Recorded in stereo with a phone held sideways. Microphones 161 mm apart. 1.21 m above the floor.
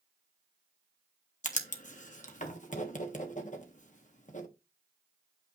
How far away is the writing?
About 1.5 m.